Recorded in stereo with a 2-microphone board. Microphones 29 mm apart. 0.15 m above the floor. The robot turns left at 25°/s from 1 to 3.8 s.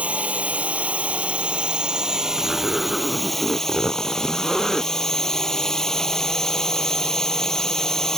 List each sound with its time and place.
0.0 s a drone: 125° right; by 8.2 s 165° left
2.4 s a zipper: 15° right (ahead or behind); by 4.9 s 5° left (ahead or behind)